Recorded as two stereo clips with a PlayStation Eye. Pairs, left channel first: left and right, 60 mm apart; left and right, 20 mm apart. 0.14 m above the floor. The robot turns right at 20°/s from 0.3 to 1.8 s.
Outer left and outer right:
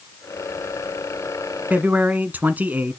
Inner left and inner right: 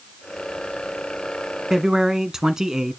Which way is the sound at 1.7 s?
30° right (ahead or behind).